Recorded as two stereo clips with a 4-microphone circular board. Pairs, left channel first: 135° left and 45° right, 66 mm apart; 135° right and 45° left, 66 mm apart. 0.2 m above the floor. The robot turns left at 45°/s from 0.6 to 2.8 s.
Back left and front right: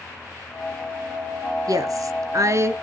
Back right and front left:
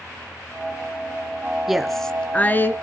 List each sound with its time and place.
1.7 s a woman speaking: 40° right, 2 m; by 2.7 s 90° right, 2 m